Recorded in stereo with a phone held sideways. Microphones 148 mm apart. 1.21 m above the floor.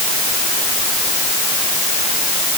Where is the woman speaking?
I don't hear a woman speaking.